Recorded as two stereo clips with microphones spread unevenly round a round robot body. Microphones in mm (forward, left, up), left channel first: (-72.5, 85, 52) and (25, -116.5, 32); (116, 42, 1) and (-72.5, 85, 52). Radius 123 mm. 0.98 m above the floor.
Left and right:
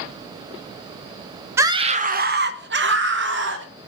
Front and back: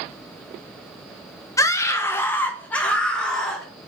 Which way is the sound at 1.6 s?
5° right.